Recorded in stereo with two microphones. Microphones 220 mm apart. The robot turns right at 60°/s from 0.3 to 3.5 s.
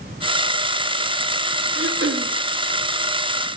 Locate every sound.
1.8 s throat clearing: 85° right, 0.6 m; by 2.3 s 55° right, 0.6 m